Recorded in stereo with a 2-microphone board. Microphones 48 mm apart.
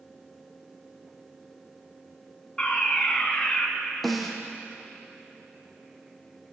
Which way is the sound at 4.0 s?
5° left (ahead or behind).